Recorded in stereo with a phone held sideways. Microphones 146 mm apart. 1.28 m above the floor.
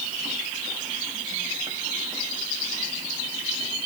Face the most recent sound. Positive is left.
No sound to turn to.